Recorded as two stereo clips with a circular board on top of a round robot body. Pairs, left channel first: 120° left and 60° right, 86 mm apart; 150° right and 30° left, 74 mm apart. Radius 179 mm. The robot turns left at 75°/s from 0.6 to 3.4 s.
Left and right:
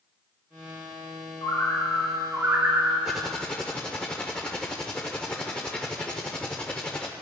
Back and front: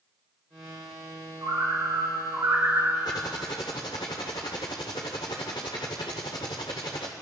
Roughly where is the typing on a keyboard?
Behind right.